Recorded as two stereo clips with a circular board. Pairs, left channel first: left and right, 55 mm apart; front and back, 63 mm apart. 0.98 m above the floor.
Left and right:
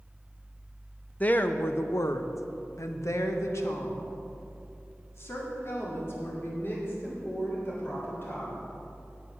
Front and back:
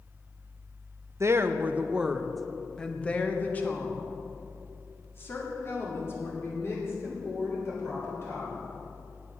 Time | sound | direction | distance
1.2 | a woman speaking | 145° left | 0.6 m